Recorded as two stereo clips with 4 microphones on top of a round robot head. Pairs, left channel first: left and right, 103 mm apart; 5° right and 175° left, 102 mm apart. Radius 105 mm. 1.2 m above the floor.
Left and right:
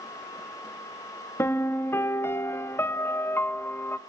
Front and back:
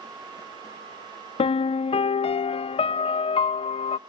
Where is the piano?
20° left, 0.6 m.